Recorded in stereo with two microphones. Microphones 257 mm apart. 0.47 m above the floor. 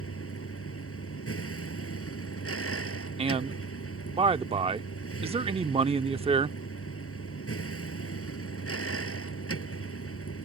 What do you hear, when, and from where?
0.0 s a vehicle: 60° left (ahead or behind)
3.2 s a man speaking: 20° right (ahead or behind)